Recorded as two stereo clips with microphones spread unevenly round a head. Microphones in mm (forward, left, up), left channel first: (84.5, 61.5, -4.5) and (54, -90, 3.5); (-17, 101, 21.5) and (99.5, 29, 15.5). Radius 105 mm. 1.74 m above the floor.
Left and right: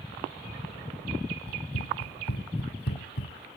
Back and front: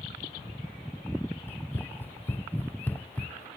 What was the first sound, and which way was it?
Running footsteps, 75° left.